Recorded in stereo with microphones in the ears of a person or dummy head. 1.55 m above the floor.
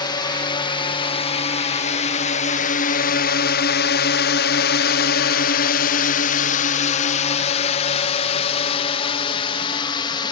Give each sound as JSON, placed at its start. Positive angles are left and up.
{"t": 0.0, "sound": "a drone", "side_deg": 20}